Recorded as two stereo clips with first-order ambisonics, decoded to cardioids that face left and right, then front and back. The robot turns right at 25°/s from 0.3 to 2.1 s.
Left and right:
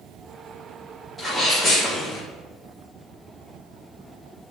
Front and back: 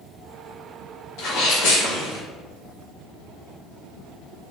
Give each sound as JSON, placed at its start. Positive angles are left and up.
{"t": 1.2, "sound": "a sneeze", "azimuth_deg": -10, "distance_m": 1.9}